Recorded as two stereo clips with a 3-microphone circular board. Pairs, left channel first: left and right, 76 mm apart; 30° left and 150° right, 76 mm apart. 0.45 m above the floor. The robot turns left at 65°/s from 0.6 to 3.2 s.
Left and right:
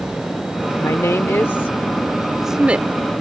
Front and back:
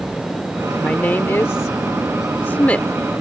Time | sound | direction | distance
0.8 | a woman speaking | 95° left | ?